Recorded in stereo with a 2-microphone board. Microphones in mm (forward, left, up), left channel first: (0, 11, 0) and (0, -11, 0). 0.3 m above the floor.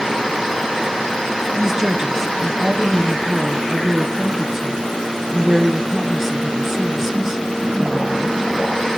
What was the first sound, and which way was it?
A woman speaking, 30° right (ahead or behind).